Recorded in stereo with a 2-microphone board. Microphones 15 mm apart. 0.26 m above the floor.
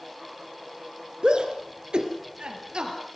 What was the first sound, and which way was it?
A shout, 70° right (ahead or behind).